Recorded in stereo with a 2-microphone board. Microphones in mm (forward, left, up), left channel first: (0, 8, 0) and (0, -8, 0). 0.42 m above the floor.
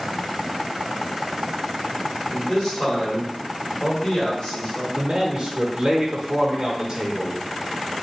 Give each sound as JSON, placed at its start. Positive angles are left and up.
{"t": 2.3, "sound": "a man speaking", "side_deg": 30, "distance_m": 1.9}
{"t": 5.0, "sound": "a man speaking", "side_deg": -40, "distance_m": 1.0}